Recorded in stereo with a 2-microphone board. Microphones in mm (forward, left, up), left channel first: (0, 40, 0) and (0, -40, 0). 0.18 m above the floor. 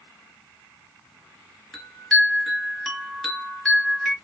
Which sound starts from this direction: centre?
A chime, at 1.7 s.